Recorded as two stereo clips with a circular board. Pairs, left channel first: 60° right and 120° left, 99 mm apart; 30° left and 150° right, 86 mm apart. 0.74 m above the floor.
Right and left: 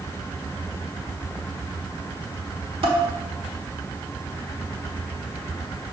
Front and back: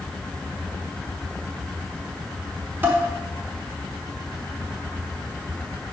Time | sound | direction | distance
2.8 | dishes clattering | 145° left | 1.2 m